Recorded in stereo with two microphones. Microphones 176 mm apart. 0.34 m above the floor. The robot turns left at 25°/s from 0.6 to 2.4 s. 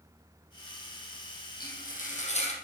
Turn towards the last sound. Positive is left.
turn(degrees=40)  # may be behind; listen again after turning